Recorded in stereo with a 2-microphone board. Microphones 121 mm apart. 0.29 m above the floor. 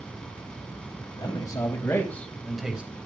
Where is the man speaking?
35° left (ahead or behind), 2 m; by 2.9 s 10° right (ahead or behind), 1.5 m.